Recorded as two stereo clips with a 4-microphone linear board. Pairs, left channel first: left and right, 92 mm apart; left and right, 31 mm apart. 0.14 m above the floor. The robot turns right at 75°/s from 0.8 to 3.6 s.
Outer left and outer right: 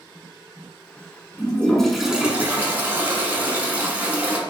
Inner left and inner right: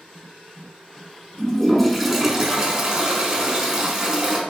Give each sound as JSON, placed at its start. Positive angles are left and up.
{"t": 1.4, "sound": "a toilet flushing", "side_deg": 15, "distance_m": 0.9}